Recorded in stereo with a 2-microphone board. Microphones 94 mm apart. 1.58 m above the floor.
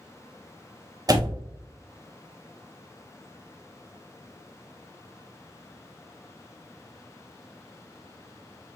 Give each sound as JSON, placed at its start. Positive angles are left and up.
{"t": 1.1, "sound": "a door slam", "side_deg": -40, "distance_m": 0.6}